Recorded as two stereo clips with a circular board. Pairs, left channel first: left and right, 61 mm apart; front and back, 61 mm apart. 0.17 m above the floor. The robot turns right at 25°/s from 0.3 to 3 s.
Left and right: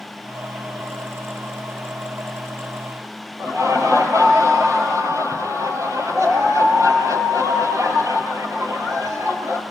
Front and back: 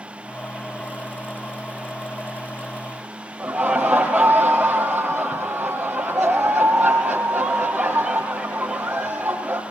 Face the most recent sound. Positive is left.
turn(degrees=-100)